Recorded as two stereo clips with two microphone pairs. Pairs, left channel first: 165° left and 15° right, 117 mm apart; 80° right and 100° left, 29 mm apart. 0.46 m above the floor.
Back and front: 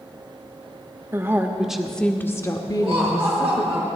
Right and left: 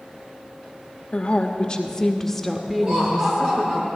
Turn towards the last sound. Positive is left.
turn(degrees=65)